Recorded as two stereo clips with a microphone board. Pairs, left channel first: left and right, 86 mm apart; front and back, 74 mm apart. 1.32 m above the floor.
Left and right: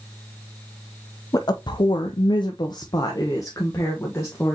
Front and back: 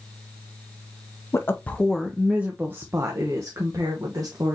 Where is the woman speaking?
50° left, 0.6 m; by 4.5 s 150° left, 1.6 m.